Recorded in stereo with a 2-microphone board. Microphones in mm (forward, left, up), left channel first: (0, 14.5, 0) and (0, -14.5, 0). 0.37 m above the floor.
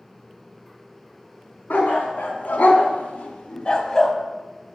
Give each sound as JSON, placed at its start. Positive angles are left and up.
{"t": 1.7, "sound": "a dog barking", "side_deg": 85, "distance_m": 1.3}